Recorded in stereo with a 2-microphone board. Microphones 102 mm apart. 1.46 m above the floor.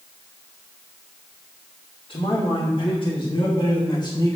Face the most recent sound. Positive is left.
turn(degrees=35)  # may be behind; listen again after turning